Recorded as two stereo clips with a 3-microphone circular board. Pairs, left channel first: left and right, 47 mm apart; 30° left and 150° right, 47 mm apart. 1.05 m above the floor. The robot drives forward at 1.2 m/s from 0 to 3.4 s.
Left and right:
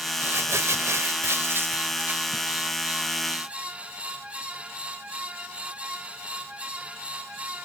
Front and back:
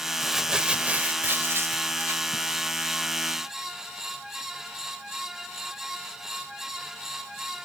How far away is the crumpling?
About 1.6 m.